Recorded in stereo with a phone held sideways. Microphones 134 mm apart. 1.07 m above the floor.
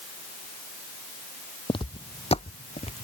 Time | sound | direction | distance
1.7 | footsteps | 40° left (ahead or behind) | ?